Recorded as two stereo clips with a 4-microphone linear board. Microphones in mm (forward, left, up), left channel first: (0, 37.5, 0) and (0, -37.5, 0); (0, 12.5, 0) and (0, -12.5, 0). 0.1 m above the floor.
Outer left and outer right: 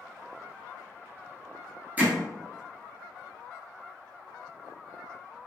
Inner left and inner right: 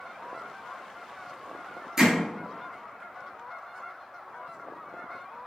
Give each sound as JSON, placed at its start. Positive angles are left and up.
{"t": 2.0, "sound": "hammering", "side_deg": -20, "distance_m": 1.2}